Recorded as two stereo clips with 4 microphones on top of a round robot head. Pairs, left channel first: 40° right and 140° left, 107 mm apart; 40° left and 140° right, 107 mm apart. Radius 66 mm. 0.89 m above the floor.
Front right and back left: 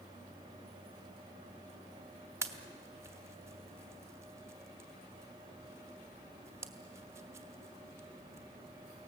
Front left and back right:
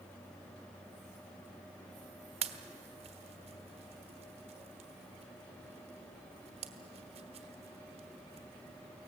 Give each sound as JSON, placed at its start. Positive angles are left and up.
{"t": 2.4, "sound": "a pop", "azimuth_deg": -160, "distance_m": 1.2}